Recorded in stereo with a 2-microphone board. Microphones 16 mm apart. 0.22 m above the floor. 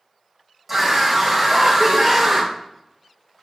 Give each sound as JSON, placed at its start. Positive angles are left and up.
{"t": 0.7, "sound": "a scream", "side_deg": -20, "distance_m": 1.2}